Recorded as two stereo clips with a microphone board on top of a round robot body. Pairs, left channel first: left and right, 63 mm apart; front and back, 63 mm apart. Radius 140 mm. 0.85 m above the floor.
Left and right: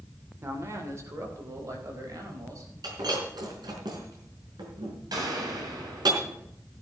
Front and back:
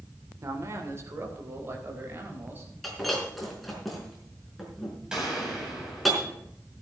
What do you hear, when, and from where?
0.4 s a man speaking: 140° right, 3 m; by 2.7 s 125° right, 5 m
2.8 s breaking glass: 90° right, 4.5 m
5.1 s a gunshot: 105° right, 7 m